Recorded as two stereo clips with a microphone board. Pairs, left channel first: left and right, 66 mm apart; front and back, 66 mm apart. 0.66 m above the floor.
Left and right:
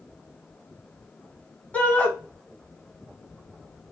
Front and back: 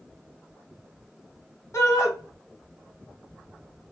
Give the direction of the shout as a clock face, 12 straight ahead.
11 o'clock.